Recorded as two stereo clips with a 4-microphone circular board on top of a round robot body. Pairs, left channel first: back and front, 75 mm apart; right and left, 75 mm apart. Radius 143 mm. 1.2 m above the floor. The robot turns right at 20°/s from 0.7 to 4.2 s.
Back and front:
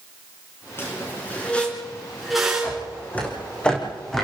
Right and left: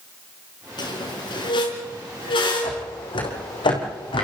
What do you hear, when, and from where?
0.8 s a squeak: 120° right, 4 m; by 2.9 s 75° right, 4 m
2.6 s footsteps: 115° right, 4.5 m; by 4.2 s 95° right, 4.5 m